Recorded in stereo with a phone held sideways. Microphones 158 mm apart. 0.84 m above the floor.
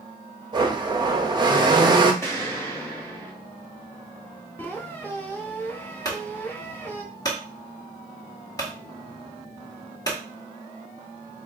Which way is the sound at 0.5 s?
30° right (ahead or behind).